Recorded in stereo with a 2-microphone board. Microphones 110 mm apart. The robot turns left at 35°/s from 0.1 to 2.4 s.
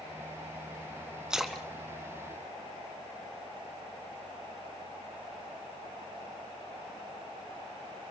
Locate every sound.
1.3 s a splash: 5° right (ahead or behind), 2.5 m; by 3.4 s 30° left (ahead or behind), 2.5 m